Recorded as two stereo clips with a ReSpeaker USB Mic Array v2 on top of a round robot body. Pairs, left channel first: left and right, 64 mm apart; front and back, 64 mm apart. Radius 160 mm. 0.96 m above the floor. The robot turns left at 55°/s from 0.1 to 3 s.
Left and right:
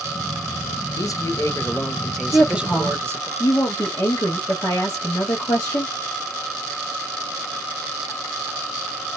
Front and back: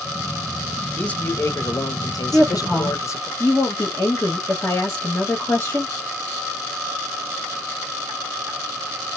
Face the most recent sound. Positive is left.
turn(degrees=60)